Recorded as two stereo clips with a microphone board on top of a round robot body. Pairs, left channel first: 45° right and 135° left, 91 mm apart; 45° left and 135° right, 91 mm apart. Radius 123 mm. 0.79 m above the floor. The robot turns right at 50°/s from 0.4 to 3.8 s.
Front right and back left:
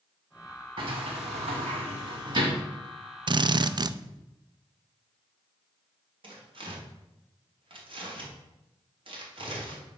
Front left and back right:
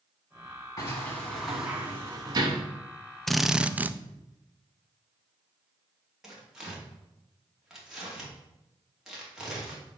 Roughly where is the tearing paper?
Behind left.